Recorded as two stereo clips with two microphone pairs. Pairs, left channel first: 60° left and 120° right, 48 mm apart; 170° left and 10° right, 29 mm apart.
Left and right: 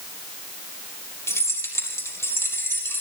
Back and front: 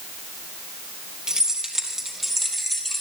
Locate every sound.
1.3 s keys jangling: 55° left, 3.5 m; by 3.0 s 90° left, 5 m